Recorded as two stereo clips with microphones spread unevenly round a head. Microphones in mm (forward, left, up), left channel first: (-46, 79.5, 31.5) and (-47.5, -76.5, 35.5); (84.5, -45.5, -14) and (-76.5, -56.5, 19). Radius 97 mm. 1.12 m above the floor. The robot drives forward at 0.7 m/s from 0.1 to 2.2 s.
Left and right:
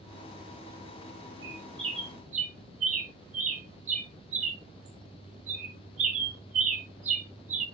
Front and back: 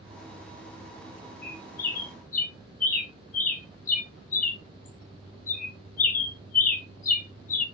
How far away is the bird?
About 1.1 m.